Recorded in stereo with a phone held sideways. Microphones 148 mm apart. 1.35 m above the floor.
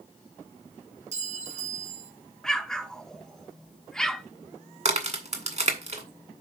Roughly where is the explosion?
Centre.